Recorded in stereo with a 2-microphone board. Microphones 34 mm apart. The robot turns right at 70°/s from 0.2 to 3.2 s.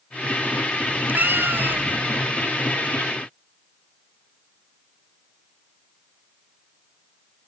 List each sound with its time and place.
0.9 s a cat meowing: 130° right; by 2.1 s 45° right